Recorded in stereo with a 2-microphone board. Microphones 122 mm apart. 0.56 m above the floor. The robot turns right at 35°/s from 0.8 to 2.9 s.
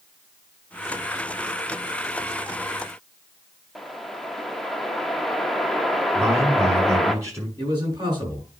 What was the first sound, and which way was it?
A whoosh, centre (ahead or behind).